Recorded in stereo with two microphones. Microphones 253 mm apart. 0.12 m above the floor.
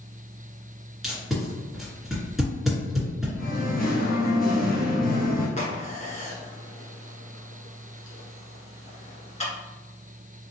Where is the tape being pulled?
Centre (ahead or behind), 1.9 m.